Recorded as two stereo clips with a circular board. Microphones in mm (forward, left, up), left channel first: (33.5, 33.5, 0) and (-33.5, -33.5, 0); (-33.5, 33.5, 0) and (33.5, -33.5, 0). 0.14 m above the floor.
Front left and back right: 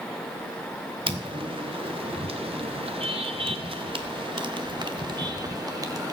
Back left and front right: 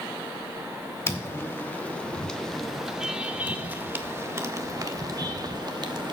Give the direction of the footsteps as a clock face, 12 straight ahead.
5 o'clock.